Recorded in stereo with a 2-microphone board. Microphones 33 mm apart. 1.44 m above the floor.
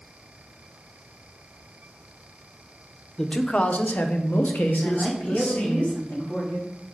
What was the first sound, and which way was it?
A man speaking, 25° left (ahead or behind).